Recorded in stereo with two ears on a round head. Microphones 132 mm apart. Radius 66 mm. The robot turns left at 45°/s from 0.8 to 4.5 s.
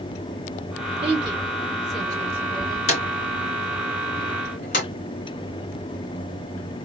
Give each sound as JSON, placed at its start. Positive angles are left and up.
{"t": 1.0, "sound": "a woman speaking", "side_deg": -40, "distance_m": 3.0}
{"t": 2.9, "sound": "a drawer", "side_deg": 50, "distance_m": 3.0}